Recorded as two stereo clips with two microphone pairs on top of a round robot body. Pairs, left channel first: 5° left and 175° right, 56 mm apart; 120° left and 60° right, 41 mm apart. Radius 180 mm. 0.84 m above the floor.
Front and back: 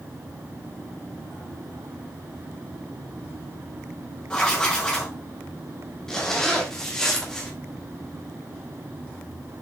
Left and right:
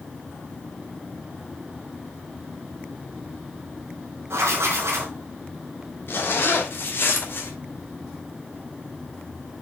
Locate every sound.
4.3 s writing: 70° right, 1.6 m
6.1 s a zipper: 85° left, 1.6 m